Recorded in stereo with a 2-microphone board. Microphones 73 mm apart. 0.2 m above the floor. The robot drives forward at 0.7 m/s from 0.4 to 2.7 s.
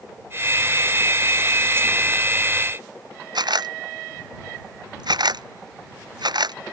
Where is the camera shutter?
75° right (ahead or behind).